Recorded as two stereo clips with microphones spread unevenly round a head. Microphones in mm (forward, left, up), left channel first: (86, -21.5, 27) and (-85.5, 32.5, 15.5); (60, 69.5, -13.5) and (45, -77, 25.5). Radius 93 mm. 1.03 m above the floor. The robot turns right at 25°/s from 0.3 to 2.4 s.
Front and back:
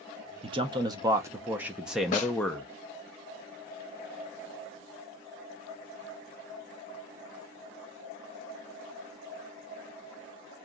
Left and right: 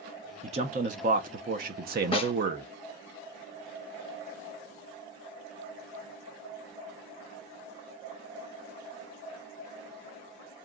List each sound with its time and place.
0.4 s a man speaking: 155° right, 0.7 m; by 2.7 s 105° right, 0.7 m
2.1 s a snare drum: 25° left, 0.7 m; by 2.3 s 30° left, 0.7 m